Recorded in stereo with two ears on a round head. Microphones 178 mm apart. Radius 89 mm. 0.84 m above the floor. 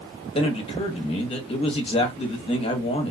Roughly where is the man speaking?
Left.